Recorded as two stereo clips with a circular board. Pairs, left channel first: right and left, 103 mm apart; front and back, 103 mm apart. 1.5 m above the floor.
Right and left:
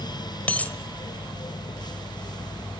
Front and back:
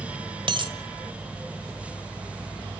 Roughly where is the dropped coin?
Behind.